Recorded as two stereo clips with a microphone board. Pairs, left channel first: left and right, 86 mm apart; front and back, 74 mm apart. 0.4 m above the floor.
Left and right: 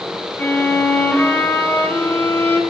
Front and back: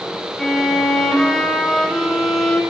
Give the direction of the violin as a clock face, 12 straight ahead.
10 o'clock.